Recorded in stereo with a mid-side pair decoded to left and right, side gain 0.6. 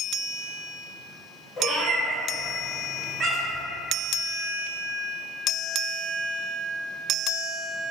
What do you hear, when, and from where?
1.6 s a cat meowing: 30° left, 1.0 m; by 3.6 s 55° right, 0.8 m